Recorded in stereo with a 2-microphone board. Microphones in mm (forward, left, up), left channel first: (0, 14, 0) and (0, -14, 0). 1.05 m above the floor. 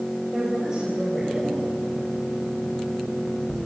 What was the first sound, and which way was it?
A woman speaking, 25° right (ahead or behind).